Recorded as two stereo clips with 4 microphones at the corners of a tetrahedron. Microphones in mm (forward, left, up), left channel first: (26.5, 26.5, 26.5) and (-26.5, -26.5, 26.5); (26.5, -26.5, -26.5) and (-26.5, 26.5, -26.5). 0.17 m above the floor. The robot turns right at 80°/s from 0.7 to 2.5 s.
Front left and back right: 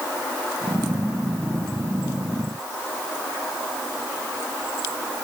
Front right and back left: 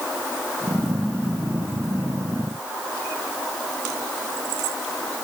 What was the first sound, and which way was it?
Only background noise.